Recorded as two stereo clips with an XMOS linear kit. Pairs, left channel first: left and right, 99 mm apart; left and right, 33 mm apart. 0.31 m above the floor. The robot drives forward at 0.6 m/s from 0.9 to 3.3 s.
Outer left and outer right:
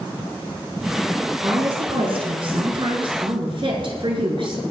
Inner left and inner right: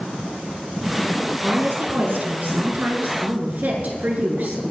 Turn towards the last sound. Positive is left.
turn(degrees=-55)  # may be behind; listen again after turning